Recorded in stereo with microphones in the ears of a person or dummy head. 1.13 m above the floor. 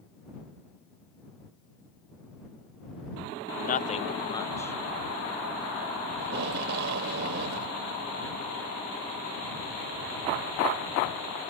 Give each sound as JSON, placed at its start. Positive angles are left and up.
{"t": 3.6, "sound": "a man speaking", "side_deg": 45}
{"t": 6.2, "sound": "tape being pulled", "side_deg": -60}